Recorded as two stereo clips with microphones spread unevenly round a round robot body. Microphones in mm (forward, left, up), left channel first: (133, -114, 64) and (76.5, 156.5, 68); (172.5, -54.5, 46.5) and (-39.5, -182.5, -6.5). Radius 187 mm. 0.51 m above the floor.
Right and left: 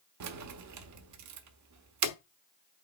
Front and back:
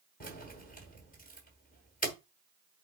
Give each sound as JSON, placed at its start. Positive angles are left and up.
{"t": 0.2, "sound": "keys jangling", "azimuth_deg": 100, "distance_m": 1.2}